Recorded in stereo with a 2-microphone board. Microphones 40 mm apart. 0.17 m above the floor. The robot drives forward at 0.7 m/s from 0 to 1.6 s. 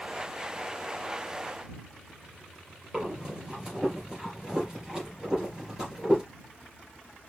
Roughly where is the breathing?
Centre.